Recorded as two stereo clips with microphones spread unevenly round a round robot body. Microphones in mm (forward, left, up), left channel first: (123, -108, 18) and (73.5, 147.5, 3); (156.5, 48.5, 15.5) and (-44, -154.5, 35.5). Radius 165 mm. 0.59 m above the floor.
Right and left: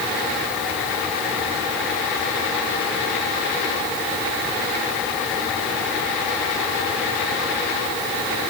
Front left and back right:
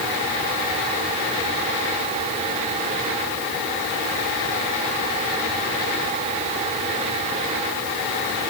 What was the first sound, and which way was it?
Only background noise.